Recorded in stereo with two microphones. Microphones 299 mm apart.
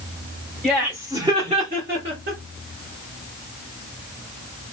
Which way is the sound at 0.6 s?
Centre (ahead or behind).